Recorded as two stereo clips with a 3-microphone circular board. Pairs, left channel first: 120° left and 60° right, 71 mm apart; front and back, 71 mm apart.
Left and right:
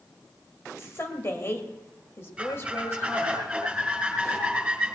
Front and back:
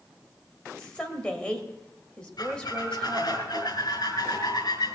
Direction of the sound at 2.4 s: 20° left.